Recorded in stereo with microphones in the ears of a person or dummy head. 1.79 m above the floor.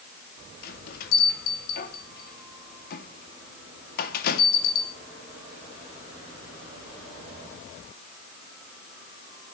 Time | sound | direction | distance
0.6 | a bell | 55° left (ahead or behind) | 2.5 m